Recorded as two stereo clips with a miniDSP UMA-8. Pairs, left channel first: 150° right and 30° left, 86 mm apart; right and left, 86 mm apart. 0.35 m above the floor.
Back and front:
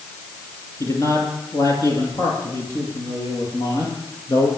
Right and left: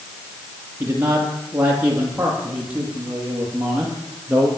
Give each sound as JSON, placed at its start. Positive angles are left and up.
{"t": 0.8, "sound": "a man speaking", "azimuth_deg": 155, "distance_m": 7.0}